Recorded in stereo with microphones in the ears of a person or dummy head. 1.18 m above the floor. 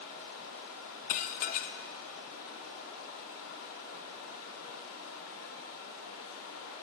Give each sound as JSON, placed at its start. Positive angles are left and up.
{"t": 0.0, "sound": "running water", "side_deg": 75, "distance_m": 1.6}
{"t": 1.1, "sound": "dishes clattering", "side_deg": 45, "distance_m": 0.5}